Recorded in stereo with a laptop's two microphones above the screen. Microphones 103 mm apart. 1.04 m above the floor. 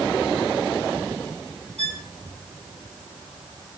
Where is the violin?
75° left (ahead or behind), 1.5 m.